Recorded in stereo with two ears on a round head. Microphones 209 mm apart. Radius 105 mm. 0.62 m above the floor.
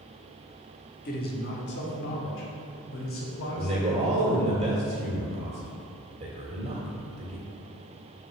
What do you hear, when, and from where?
1.1 s a man speaking: 40° left (ahead or behind), 1.4 m; by 4.6 s 65° left (ahead or behind), 4 m
3.6 s a man speaking: 25° right (ahead or behind), 1.7 m